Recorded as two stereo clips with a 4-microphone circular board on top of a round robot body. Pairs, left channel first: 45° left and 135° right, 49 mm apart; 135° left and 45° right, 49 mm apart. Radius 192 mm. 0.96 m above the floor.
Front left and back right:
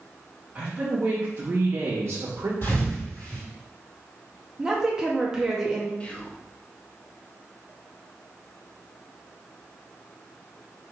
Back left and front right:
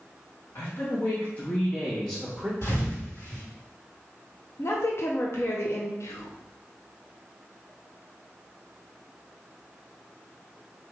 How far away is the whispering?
About 1.0 m.